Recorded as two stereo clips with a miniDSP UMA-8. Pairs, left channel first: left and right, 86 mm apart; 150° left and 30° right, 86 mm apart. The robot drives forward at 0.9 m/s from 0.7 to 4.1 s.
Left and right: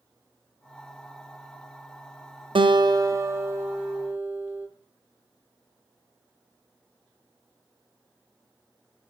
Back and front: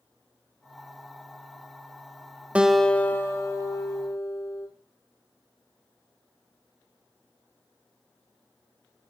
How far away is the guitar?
About 0.5 m.